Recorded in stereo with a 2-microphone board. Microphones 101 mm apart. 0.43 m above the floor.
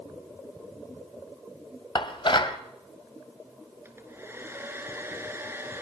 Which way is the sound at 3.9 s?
25° right (ahead or behind).